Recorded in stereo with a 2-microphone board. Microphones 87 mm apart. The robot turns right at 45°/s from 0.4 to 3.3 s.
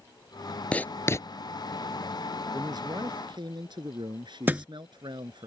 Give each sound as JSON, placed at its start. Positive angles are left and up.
{"t": 0.7, "sound": "writing", "side_deg": 15}
{"t": 2.5, "sound": "a man speaking", "azimuth_deg": -125}
{"t": 4.5, "sound": "a thud", "side_deg": -20}